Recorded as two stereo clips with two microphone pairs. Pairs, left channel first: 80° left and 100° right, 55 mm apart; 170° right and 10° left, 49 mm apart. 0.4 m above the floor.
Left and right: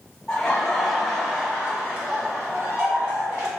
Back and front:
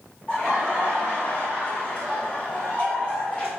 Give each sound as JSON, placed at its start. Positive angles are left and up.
{"t": 0.3, "sound": "laughter", "azimuth_deg": 145, "distance_m": 1.0}